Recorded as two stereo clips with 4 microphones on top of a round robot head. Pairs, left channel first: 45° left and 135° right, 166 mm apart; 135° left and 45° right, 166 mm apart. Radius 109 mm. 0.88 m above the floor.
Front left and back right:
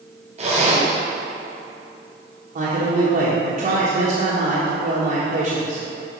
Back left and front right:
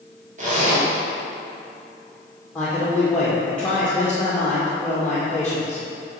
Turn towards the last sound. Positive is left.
turn(degrees=-145)